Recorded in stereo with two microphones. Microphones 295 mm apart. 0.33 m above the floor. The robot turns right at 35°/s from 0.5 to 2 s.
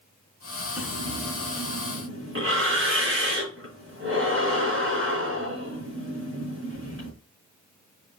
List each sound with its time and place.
0.8 s breathing: 5° right (ahead or behind), 4 m; by 7.1 s 45° right (ahead or behind), 4 m